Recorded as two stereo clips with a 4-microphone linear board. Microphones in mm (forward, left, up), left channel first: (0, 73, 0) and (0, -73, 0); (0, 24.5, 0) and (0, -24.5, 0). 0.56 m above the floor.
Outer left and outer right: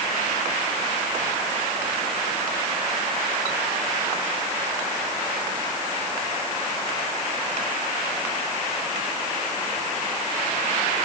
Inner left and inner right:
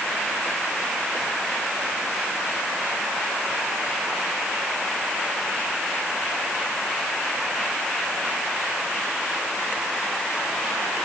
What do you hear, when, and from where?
Only background noise.